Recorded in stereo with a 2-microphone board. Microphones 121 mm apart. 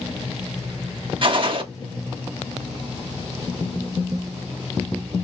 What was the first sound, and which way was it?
A gunshot, 45° right (ahead or behind).